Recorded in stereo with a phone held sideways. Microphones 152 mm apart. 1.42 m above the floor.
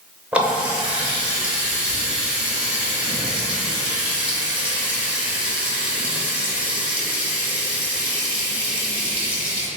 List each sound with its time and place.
0.3 s a running tap: 10° right (ahead or behind), 0.6 m